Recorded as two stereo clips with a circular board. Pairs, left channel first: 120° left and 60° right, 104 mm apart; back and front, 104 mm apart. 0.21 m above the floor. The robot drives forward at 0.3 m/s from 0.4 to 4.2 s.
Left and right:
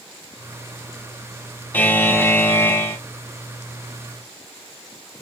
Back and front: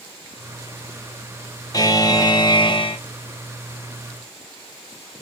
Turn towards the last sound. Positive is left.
turn(degrees=180)